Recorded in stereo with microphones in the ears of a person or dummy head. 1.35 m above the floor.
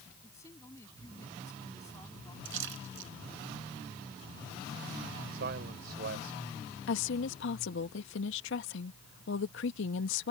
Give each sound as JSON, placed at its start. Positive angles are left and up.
{"t": 0.2, "sound": "a woman speaking", "side_deg": 20}
{"t": 2.5, "sound": "a splash", "side_deg": -75}
{"t": 5.3, "sound": "a man speaking", "side_deg": -60}
{"t": 6.9, "sound": "a woman speaking", "side_deg": 80}